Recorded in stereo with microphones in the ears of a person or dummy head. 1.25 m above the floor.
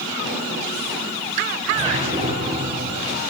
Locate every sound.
1.7 s a whoosh: 30° right (ahead or behind), 5.5 m